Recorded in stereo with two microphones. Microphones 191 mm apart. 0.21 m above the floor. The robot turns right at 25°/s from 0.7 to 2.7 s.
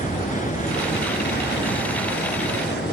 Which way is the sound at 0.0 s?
50° left.